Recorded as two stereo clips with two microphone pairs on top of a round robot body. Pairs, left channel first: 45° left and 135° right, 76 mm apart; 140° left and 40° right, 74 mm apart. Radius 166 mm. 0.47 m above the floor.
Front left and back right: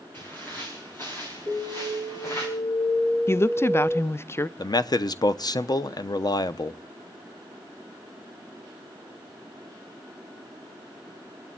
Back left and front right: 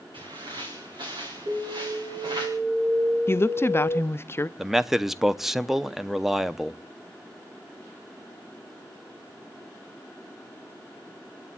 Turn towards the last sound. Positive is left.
turn(degrees=40)